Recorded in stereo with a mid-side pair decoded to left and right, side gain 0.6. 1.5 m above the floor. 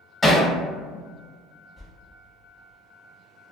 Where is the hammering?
10° left, 0.9 m.